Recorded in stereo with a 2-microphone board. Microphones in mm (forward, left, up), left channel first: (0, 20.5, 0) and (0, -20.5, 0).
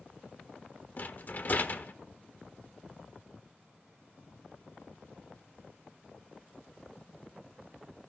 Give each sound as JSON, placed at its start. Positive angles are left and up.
{"t": 1.0, "sound": "a rattle", "side_deg": 45, "distance_m": 1.0}